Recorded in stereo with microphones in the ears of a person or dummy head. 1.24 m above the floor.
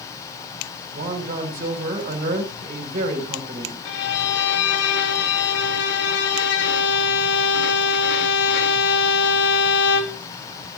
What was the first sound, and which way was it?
A man speaking, 50° right (ahead or behind).